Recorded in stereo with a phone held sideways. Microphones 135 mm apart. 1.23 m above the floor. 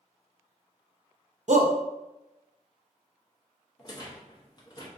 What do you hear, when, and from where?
1.5 s a shout: 65° right (ahead or behind), 0.5 m
3.8 s a rattle: 30° left (ahead or behind), 0.6 m